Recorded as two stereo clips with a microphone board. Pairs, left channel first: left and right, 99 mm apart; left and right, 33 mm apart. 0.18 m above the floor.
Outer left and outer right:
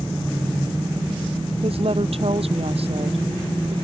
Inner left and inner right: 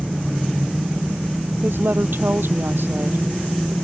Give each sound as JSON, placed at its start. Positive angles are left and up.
{"t": 1.6, "sound": "a woman speaking", "side_deg": -70}